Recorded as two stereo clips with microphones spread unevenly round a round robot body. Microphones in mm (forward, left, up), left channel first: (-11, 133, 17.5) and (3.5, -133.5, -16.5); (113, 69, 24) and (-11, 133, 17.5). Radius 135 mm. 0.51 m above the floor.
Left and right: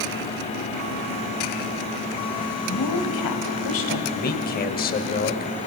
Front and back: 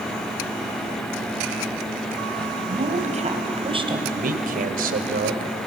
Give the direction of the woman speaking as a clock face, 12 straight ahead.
8 o'clock.